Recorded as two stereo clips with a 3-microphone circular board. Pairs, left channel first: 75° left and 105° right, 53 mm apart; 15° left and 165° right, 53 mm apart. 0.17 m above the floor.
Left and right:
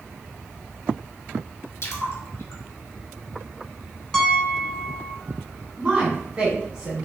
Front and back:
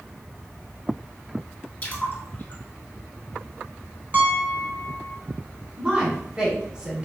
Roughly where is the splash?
Ahead left.